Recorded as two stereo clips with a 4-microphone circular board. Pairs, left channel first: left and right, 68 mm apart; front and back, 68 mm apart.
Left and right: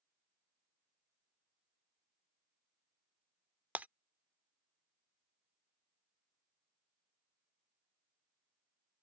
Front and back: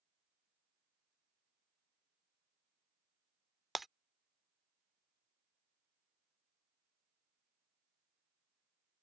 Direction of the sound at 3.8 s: 95° right.